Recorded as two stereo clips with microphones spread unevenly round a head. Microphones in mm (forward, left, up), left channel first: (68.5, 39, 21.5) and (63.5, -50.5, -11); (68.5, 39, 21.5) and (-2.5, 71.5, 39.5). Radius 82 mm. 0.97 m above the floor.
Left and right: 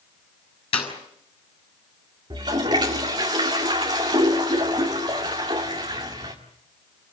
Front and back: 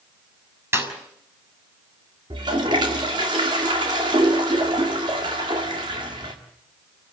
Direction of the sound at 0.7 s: 100° left.